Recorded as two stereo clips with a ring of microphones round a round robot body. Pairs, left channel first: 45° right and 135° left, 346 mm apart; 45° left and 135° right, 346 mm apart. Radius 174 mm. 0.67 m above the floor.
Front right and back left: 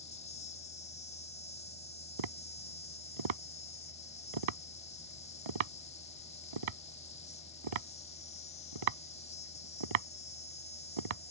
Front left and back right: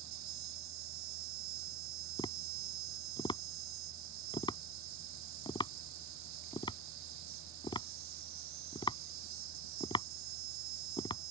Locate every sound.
0.0 s an insect: 115° right
2.2 s tapping: 125° left